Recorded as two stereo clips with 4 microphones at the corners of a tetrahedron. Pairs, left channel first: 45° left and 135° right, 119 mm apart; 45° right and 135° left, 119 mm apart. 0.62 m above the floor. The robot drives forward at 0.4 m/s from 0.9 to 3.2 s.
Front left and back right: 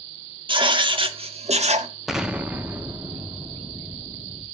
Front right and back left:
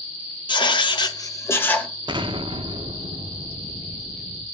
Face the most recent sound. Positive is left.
turn(degrees=160)